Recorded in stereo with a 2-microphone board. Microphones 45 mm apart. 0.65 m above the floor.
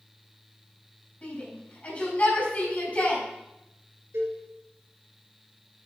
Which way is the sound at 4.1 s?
70° right (ahead or behind).